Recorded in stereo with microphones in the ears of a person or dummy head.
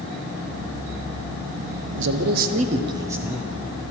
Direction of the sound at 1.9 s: 65° right (ahead or behind).